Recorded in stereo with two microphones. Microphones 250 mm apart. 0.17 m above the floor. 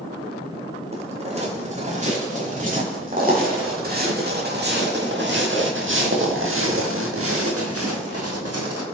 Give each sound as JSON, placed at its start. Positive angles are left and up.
{"t": 0.9, "sound": "footsteps", "side_deg": -25, "distance_m": 7.5}